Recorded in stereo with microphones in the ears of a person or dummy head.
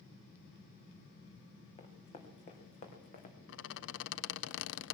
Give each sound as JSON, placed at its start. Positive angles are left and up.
{"t": 1.8, "sound": "running footsteps", "side_deg": 35, "distance_m": 3.5}
{"t": 3.5, "sound": "a squeak", "side_deg": 70, "distance_m": 0.5}